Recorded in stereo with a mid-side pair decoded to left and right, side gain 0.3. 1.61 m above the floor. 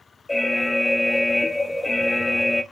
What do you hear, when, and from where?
0.3 s an alarm: 25° left, 1.0 m